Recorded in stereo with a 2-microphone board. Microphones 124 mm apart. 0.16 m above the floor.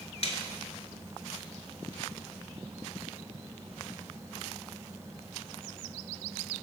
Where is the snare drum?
55° left (ahead or behind), 0.8 m.